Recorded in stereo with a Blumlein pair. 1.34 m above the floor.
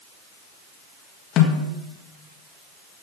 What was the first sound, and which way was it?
A snare drum, 35° left.